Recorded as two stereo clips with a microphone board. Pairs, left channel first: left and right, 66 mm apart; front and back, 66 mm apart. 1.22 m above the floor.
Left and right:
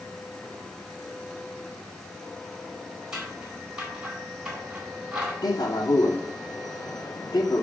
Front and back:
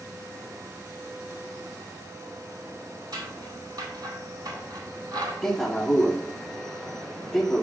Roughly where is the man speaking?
Left.